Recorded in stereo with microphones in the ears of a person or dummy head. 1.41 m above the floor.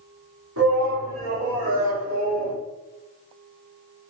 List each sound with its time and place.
0.6 s a shout: 80° right, 3.5 m; by 2.6 s 70° right (ahead or behind), 3 m